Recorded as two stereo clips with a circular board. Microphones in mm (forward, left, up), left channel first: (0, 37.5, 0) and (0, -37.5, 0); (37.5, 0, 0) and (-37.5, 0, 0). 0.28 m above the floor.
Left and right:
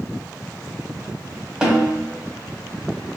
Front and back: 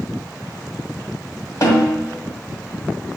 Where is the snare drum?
10° right, 1.1 m.